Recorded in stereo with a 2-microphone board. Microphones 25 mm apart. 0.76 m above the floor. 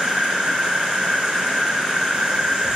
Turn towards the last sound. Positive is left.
turn(degrees=-30)  # may be behind; listen again after turning